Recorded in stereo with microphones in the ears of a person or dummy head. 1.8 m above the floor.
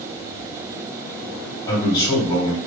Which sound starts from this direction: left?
A man speaking, at 1.7 s.